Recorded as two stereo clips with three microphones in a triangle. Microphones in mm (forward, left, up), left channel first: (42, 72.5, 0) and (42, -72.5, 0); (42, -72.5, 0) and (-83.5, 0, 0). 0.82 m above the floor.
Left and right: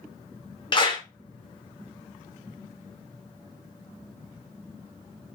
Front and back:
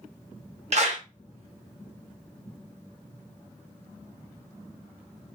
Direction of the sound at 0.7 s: 135° left.